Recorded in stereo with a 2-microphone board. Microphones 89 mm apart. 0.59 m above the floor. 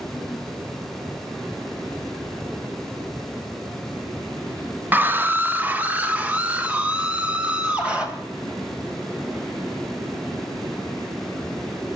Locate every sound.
4.9 s a scream: 20° right (ahead or behind), 0.6 m; by 8.1 s 15° right (ahead or behind), 3 m